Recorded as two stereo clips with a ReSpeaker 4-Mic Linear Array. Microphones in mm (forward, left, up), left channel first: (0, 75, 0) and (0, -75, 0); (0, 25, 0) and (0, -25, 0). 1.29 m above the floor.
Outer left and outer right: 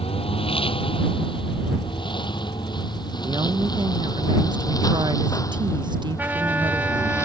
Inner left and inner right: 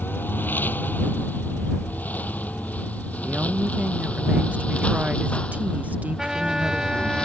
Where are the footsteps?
I don't hear footsteps.